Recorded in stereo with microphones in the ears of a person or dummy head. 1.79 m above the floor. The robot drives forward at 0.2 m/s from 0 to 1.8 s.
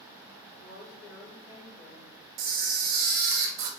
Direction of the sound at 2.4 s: 45° right (ahead or behind).